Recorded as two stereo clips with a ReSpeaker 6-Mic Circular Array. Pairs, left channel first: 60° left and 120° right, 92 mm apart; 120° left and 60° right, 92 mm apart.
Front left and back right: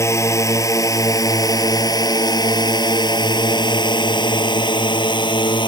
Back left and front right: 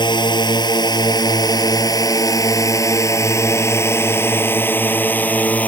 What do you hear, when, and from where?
0.0 s a drone: 110° left; by 5.7 s 50° left